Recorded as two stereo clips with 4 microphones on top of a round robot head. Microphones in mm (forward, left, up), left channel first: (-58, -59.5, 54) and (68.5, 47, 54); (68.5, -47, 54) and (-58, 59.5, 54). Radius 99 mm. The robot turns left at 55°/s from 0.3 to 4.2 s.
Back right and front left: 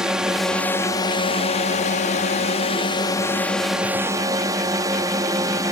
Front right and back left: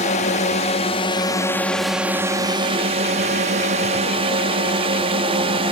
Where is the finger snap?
No finger snap in this recording.